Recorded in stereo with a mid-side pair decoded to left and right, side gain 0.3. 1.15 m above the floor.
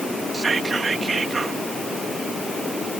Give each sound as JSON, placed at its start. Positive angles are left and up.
{"t": 0.3, "sound": "whispering", "azimuth_deg": -50}